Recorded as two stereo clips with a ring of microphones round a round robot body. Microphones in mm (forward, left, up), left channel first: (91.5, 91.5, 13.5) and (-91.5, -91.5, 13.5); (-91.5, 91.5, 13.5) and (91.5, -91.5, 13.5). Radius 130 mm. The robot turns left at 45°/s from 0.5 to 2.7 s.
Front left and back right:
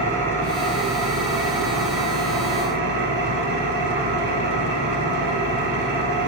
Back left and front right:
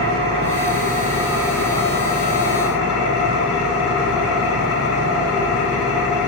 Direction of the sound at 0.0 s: 85° right.